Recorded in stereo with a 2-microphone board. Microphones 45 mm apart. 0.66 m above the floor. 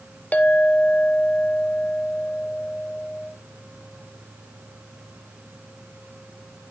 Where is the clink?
35° left (ahead or behind), 0.6 m.